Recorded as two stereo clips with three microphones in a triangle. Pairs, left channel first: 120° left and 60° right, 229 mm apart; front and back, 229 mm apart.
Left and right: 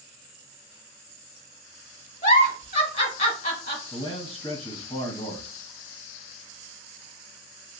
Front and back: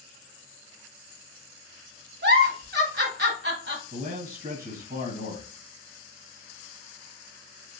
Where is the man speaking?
170° left, 1.3 m.